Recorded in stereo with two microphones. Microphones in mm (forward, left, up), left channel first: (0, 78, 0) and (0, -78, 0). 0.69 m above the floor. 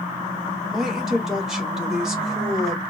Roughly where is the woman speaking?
Centre.